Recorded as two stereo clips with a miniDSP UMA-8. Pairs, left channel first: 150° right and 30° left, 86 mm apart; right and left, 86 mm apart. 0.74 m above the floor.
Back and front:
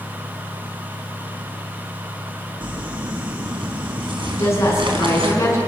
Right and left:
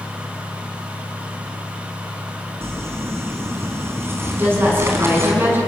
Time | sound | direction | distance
2.6 | crumpling | 30° left | 4 m
4.3 | a woman speaking | 155° left | 7.5 m